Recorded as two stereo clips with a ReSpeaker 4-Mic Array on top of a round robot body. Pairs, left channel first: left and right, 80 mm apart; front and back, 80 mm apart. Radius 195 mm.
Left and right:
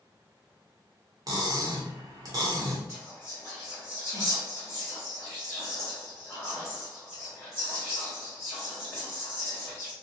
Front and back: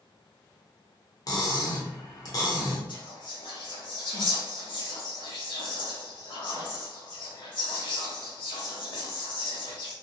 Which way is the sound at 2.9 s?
20° left.